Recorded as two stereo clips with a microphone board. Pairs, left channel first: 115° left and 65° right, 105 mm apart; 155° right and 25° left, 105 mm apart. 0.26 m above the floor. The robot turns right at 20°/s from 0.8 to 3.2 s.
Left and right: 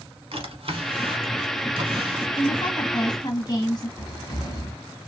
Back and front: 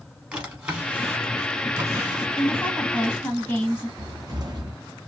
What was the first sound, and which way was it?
A drawer, 55° right.